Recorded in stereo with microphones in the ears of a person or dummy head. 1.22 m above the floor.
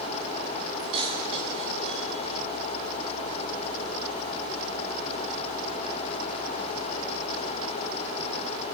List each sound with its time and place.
0.8 s keys jangling: 35° right (ahead or behind), 9 m